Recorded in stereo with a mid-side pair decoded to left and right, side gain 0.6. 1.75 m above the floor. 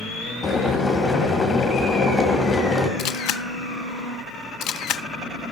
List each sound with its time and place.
0.4 s boiling: 30° left, 2.5 m
3.0 s a camera shutter: 65° left, 0.6 m